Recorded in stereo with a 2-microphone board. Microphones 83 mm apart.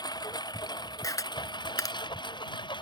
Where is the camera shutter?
45° left (ahead or behind).